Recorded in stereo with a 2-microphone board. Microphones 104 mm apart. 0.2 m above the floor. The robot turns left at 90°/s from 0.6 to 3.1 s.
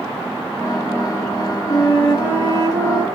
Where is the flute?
125° left, 2.5 m; by 3.0 s 5° left, 2.5 m.